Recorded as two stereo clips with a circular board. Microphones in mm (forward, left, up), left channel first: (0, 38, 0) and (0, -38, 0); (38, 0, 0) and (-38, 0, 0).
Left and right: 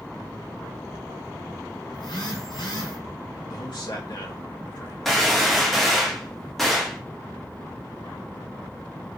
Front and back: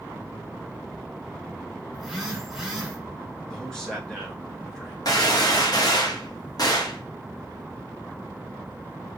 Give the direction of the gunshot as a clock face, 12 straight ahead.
12 o'clock.